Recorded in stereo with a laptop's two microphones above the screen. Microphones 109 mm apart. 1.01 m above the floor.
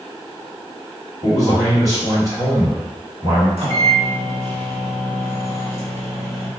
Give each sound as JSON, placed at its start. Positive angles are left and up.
{"t": 1.2, "sound": "a man speaking", "side_deg": -30, "distance_m": 1.4}
{"t": 3.6, "sound": "a microwave", "side_deg": -70, "distance_m": 1.0}